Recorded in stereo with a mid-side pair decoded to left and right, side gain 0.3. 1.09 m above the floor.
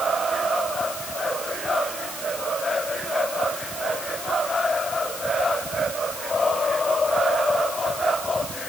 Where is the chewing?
No chewing in this recording.